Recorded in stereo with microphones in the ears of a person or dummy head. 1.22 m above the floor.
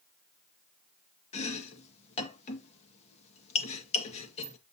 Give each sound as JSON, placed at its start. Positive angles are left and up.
{"t": 1.3, "sound": "chopping", "side_deg": 40, "distance_m": 1.9}